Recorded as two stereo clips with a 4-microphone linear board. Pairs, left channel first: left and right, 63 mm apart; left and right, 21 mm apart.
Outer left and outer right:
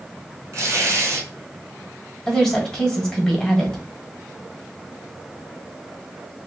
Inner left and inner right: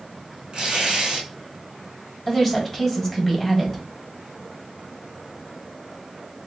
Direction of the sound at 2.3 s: 10° left (ahead or behind).